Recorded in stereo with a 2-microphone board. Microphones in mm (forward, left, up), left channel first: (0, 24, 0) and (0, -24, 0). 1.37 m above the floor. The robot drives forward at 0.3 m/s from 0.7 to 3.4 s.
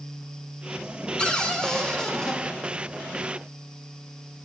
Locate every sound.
1.2 s a cupboard door: 15° left (ahead or behind), 0.6 m; by 2.4 s 10° left (ahead or behind), 1.0 m